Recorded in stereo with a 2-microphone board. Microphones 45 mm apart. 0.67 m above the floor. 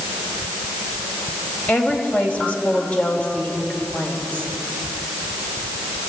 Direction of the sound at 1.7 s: 40° left (ahead or behind).